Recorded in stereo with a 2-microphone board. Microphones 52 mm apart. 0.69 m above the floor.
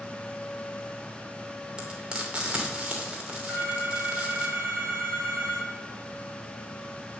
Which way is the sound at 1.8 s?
20° right (ahead or behind).